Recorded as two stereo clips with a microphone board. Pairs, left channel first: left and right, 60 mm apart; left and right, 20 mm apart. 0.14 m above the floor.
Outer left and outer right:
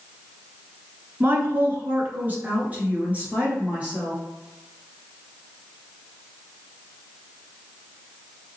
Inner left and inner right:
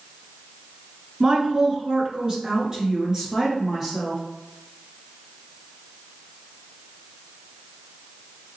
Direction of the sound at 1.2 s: 35° right (ahead or behind).